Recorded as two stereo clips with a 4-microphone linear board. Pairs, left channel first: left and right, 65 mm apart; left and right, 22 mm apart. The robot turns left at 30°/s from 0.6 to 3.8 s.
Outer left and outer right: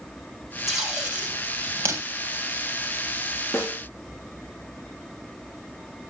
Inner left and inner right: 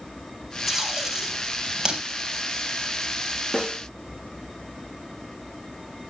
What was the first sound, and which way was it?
Tape being pulled, 5° right (ahead or behind).